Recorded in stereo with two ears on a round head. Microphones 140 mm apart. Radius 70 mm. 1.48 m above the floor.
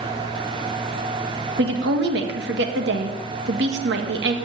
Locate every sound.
1.6 s a woman speaking: 75° right (ahead or behind), 2 m